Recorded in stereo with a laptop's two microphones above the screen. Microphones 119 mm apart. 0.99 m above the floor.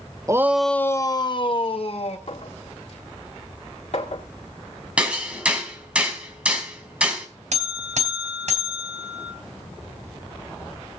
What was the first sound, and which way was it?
A shout, 25° right (ahead or behind).